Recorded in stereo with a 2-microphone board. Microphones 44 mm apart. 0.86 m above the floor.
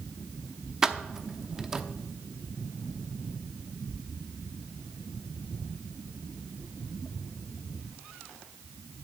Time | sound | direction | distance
0.8 | keys jangling | 10° right (ahead or behind) | 0.8 m